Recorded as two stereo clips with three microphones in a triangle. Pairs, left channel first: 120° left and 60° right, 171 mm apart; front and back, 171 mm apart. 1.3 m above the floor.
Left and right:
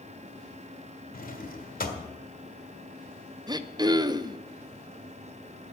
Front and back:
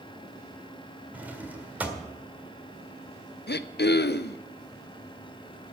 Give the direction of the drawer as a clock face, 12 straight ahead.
9 o'clock.